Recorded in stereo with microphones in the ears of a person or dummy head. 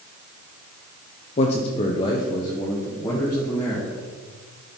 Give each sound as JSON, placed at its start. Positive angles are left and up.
{"t": 1.4, "sound": "a man speaking", "side_deg": 40, "distance_m": 0.7}